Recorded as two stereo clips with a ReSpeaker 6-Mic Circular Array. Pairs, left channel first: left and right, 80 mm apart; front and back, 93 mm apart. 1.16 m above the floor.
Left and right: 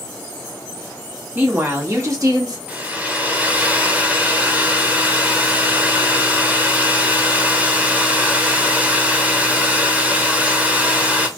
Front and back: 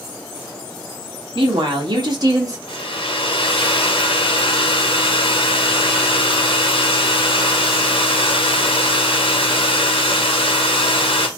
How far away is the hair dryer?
About 0.9 m.